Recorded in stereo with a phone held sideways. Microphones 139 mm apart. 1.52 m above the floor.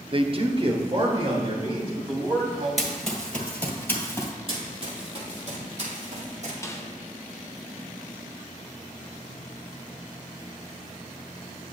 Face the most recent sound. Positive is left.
turn(degrees=20)  # may be behind; listen again after turning